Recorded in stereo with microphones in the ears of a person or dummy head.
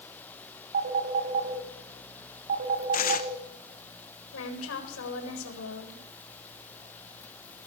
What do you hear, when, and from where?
0.7 s a phone ringing: 45° right (ahead or behind), 6 m
2.9 s tearing paper: 45° left (ahead or behind), 1.8 m
4.3 s a woman speaking: 85° left, 8 m